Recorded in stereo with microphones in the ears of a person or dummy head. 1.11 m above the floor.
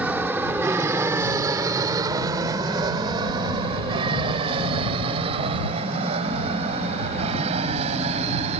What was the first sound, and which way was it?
An aircraft, 10° right (ahead or behind).